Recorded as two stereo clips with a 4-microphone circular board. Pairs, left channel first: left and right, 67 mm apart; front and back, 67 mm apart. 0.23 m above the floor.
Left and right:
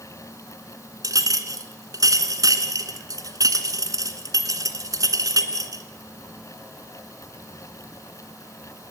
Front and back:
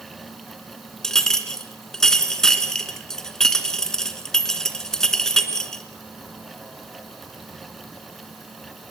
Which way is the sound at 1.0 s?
80° right.